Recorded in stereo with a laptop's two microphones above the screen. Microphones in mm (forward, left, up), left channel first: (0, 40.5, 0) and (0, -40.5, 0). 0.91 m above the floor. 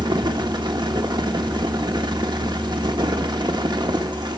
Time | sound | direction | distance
0.0 | a fan | 65° right (ahead or behind) | 1.2 m